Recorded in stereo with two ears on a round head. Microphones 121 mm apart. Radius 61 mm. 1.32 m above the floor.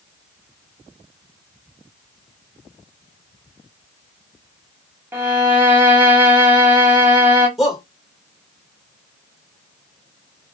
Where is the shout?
Centre (ahead or behind), 2 m.